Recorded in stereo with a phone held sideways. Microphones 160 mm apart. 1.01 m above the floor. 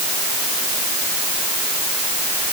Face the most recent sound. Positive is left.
No sound to turn to.